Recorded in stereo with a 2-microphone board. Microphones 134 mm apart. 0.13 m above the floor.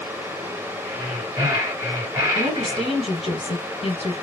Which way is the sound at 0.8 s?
20° right (ahead or behind).